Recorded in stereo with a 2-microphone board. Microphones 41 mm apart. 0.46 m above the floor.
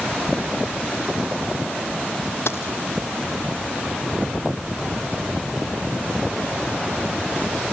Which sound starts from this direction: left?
A dropped coin, at 2.5 s.